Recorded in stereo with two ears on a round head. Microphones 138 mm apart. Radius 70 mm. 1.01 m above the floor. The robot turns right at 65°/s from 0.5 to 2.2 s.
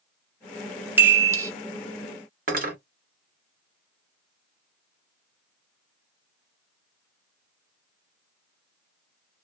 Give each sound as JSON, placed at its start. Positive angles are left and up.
{"t": 1.0, "sound": "a chime", "side_deg": -15, "distance_m": 0.5}
{"t": 2.5, "sound": "cutlery clinking", "side_deg": -60, "distance_m": 0.9}